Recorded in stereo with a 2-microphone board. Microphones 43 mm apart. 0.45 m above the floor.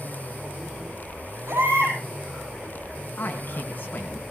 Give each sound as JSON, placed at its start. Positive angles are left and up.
{"t": 1.5, "sound": "a baby crying", "side_deg": -65, "distance_m": 8.5}
{"t": 3.2, "sound": "a man speaking", "side_deg": 45, "distance_m": 4.0}